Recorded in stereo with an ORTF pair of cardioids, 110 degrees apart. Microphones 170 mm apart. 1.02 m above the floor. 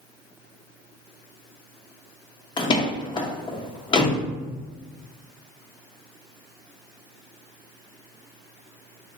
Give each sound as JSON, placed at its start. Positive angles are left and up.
{"t": 2.6, "sound": "a door slam", "azimuth_deg": 30, "distance_m": 0.7}